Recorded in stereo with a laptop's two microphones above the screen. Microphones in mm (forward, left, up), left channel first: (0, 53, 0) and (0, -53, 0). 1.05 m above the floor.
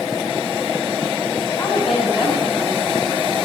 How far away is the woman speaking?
About 7 m.